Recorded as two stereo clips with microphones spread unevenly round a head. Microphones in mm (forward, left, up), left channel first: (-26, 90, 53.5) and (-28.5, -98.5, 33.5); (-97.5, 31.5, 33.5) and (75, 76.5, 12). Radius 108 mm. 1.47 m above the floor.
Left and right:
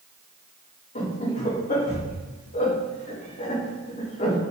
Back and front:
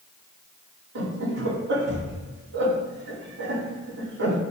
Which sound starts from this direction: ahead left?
Laughter, at 0.9 s.